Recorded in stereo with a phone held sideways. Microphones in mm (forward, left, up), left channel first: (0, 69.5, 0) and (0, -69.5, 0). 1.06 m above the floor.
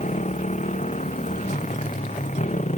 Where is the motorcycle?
55° left (ahead or behind).